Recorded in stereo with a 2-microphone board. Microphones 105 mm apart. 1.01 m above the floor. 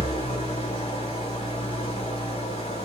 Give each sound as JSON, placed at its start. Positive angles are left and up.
{"t": 0.0, "sound": "an engine running", "side_deg": 65, "distance_m": 1.7}